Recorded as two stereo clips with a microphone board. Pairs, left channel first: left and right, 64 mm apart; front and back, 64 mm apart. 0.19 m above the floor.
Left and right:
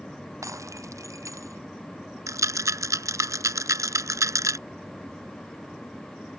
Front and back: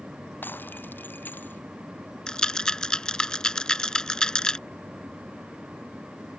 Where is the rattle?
75° right.